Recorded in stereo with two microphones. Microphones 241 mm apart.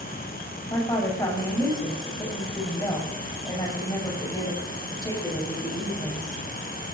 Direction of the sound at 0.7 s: 15° left (ahead or behind).